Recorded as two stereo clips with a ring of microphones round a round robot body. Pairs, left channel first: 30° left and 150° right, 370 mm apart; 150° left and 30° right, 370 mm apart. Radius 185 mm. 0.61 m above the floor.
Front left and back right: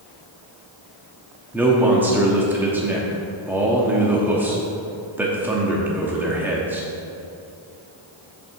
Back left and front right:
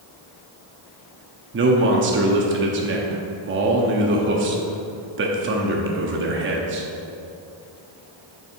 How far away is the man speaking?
About 0.8 m.